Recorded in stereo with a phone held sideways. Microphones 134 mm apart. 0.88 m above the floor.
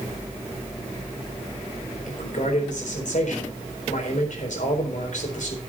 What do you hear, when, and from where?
2.1 s a man speaking: 70° left (ahead or behind), 4 m